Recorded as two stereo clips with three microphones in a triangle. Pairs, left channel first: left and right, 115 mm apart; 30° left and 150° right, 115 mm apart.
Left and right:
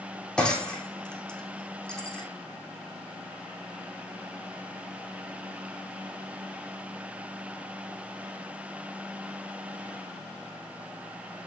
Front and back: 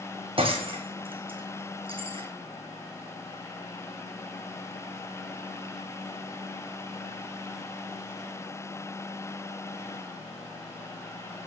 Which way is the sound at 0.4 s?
170° left.